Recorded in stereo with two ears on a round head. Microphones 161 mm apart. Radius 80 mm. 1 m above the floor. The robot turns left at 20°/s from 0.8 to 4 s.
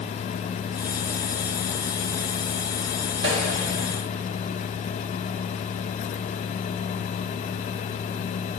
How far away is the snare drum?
About 1.7 m.